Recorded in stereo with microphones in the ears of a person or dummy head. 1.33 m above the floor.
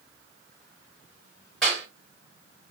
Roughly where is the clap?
Centre.